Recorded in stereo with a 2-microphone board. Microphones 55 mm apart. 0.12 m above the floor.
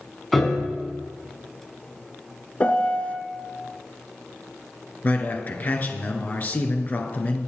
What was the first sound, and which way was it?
A piano, 5° left (ahead or behind).